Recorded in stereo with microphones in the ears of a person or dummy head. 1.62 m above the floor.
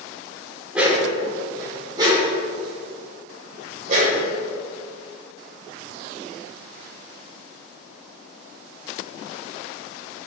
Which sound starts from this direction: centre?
A dog barking, at 0.7 s.